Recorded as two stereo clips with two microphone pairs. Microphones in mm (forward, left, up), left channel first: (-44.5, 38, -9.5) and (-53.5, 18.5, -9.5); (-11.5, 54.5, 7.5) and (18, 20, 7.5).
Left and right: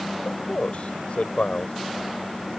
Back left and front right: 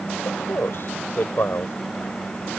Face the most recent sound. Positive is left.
turn(degrees=95)